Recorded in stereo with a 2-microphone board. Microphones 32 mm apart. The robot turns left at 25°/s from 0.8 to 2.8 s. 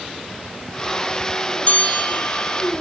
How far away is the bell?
About 1.9 m.